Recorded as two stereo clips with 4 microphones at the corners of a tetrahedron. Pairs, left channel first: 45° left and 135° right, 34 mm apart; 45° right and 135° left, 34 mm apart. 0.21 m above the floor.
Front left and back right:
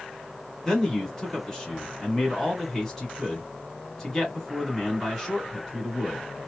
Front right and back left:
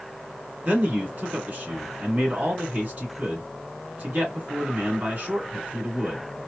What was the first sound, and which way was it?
A man speaking, 120° left.